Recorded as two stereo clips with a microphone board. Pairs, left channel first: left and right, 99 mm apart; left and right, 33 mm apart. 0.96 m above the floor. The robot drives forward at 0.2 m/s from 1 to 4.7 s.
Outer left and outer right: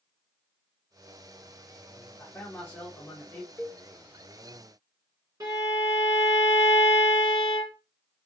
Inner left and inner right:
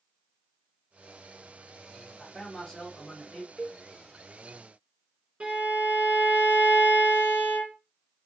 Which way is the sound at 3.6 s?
15° left (ahead or behind).